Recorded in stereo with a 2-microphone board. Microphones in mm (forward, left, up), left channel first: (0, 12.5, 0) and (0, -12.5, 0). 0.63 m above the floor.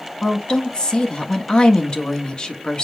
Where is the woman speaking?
40° left (ahead or behind), 1.2 m.